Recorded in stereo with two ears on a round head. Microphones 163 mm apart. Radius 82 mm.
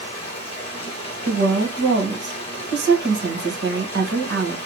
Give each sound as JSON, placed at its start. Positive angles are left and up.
{"t": 0.0, "sound": "running water", "side_deg": 30, "distance_m": 1.2}
{"t": 1.2, "sound": "a woman speaking", "side_deg": -65, "distance_m": 1.2}